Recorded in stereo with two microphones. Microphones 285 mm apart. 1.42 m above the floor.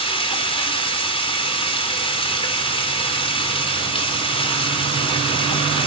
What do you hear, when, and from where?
0.0 s running water: 20° left (ahead or behind), 4.5 m